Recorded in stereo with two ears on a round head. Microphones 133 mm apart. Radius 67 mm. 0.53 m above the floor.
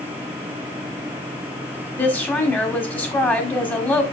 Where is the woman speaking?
10° left (ahead or behind), 1.6 m.